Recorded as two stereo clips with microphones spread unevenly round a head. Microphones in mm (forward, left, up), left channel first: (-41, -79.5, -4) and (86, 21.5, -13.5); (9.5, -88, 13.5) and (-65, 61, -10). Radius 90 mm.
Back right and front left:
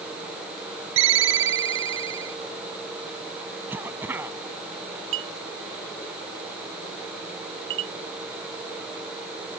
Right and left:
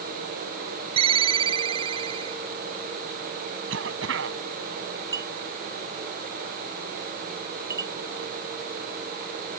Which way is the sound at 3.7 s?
120° left.